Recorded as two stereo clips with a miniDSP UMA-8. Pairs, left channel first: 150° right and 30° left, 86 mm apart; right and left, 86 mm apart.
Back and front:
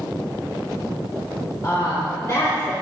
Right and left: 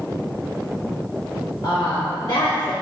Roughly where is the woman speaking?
Right.